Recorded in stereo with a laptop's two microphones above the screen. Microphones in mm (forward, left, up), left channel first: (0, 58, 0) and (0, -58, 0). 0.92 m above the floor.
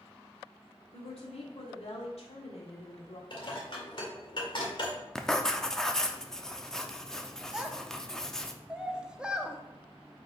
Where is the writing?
5° left (ahead or behind), 0.6 m.